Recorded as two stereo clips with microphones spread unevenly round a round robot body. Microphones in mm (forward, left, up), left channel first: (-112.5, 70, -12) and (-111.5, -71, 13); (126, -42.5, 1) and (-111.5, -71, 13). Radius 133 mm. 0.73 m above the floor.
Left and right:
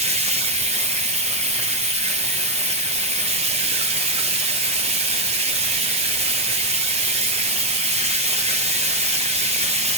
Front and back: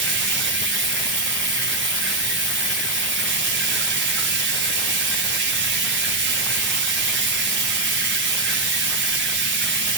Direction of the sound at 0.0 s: 135° right.